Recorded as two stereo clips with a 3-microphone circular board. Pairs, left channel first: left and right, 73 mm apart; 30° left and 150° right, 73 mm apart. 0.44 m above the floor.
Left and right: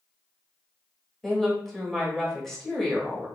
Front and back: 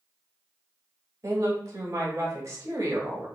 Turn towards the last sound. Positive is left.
turn(degrees=175)